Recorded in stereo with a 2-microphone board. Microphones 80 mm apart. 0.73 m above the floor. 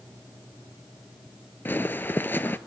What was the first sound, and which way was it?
Footsteps, 25° left (ahead or behind).